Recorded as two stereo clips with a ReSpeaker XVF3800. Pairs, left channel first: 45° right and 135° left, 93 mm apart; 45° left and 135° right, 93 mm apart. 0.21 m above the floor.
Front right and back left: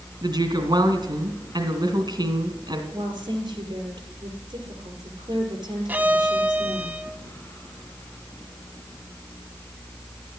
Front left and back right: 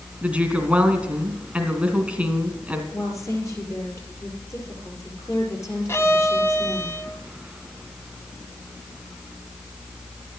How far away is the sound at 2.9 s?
About 5 m.